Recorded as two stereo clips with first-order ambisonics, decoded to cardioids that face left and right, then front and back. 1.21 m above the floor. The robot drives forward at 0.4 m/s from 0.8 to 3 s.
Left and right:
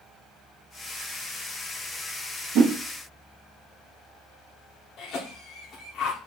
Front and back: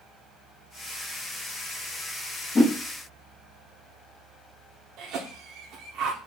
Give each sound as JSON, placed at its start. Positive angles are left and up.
{"t": 2.5, "sound": "a whoosh", "azimuth_deg": -75, "distance_m": 0.9}
{"t": 5.0, "sound": "a cough", "azimuth_deg": 145, "distance_m": 0.6}